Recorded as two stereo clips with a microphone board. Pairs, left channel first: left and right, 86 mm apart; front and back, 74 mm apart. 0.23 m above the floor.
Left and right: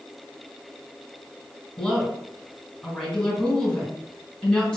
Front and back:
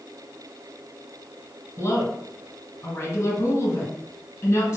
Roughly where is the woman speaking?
Ahead left.